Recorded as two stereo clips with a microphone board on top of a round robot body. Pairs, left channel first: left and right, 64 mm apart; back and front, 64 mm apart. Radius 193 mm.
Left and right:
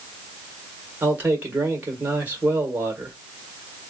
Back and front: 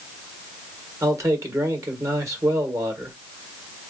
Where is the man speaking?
30° right, 2 m.